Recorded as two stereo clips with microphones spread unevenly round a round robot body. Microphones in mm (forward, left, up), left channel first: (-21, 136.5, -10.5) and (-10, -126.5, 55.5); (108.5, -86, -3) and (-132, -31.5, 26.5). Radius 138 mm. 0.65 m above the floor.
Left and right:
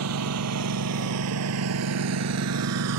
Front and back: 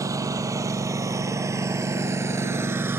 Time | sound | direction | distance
0.0 | a lawn mower | 115° right | ?